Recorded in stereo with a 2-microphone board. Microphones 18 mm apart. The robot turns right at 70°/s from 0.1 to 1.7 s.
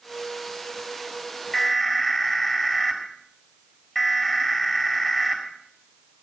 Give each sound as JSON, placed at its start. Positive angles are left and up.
{"t": 1.5, "sound": "an alarm", "side_deg": 25, "distance_m": 6.5}